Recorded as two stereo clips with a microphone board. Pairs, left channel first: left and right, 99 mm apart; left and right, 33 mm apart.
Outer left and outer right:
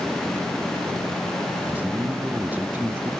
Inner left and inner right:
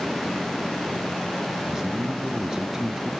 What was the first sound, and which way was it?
A man speaking, 20° right (ahead or behind).